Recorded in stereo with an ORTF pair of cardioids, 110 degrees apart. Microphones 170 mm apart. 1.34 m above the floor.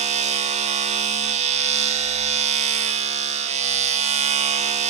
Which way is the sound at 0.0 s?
40° right.